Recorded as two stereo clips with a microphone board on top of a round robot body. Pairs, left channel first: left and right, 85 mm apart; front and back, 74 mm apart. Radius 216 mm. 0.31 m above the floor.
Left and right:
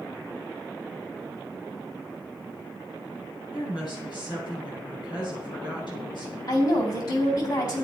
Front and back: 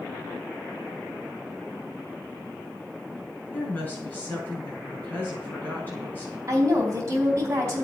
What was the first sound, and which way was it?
A woman speaking, 60° left.